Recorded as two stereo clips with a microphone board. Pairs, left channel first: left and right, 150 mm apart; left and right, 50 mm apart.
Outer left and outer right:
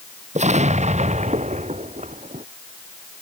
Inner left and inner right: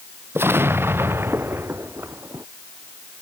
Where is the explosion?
50° right (ahead or behind).